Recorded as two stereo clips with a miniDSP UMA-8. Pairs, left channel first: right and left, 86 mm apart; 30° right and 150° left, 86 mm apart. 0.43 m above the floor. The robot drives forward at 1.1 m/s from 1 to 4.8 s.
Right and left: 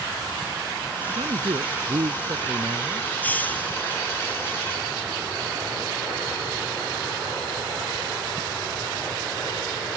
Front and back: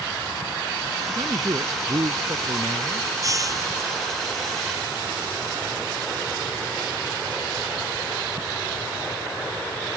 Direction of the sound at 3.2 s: 160° right.